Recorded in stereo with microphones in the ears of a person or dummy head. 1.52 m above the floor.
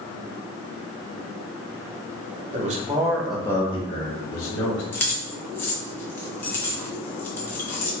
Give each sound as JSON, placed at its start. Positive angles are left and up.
{"t": 2.5, "sound": "a man speaking", "side_deg": -35, "distance_m": 0.9}
{"t": 4.9, "sound": "keys jangling", "side_deg": 10, "distance_m": 0.6}